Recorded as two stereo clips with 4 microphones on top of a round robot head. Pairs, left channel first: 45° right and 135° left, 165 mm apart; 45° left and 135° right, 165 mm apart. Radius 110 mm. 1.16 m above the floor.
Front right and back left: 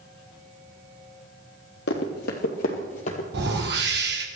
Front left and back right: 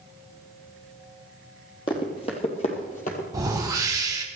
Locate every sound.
1.9 s running footsteps: 20° right, 2.5 m; by 3.2 s 5° left, 2.5 m
3.3 s a whoosh: 155° left, 2 m